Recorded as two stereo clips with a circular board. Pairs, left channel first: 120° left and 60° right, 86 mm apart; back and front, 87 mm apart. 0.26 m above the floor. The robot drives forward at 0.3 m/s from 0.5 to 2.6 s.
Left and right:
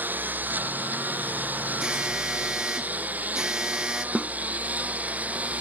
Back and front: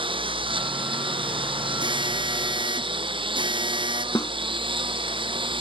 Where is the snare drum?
135° right.